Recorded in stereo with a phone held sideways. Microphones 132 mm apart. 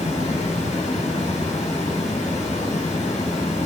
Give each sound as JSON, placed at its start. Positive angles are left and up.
{"t": 0.0, "sound": "running water", "side_deg": 65, "distance_m": 4.5}